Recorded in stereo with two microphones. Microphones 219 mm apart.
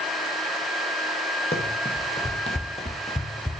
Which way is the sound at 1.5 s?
30° left (ahead or behind).